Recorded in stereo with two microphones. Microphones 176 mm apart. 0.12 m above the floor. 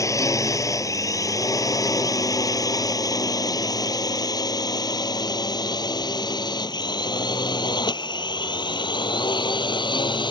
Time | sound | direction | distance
0.0 | a drone | 15° left (ahead or behind) | ?